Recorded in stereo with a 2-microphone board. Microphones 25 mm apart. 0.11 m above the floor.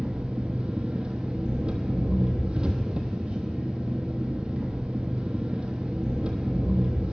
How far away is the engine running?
About 0.9 m.